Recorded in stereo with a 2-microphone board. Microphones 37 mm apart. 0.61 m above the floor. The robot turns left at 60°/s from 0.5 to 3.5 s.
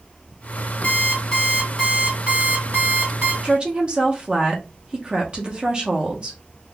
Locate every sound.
0.8 s an alarm clock: 55° left, 2 m; by 3.3 s 95° right, 2 m
3.4 s a woman speaking: 25° right (ahead or behind), 0.8 m